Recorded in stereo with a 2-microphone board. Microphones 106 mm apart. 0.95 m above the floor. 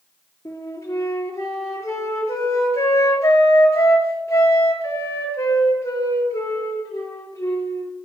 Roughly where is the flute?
Left.